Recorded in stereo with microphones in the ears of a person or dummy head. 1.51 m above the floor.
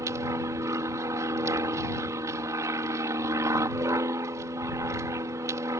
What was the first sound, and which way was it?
An aircraft, 20° right (ahead or behind).